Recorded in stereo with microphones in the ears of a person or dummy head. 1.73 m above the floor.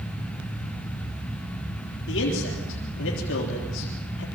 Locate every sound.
2.1 s a man speaking: 65° left (ahead or behind), 4 m